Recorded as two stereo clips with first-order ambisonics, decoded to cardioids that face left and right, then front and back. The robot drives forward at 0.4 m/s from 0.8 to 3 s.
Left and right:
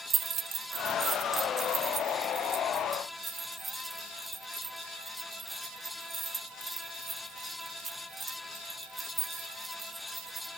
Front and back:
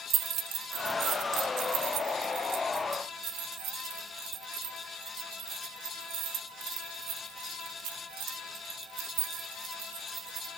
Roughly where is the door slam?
No door slam in this recording.